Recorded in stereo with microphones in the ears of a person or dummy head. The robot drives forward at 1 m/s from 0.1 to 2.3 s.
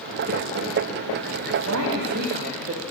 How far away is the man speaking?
About 1.2 m.